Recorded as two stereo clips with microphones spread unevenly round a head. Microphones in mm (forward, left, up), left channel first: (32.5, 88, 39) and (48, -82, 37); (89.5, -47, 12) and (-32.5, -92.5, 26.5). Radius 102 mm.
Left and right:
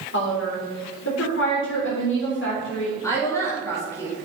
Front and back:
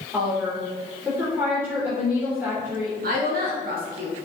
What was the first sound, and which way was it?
A woman speaking, 120° left.